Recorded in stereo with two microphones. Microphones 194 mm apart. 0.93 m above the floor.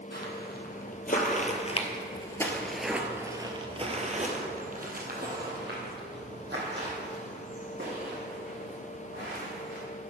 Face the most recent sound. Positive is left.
turn(degrees=-70)  # may be behind; listen again after turning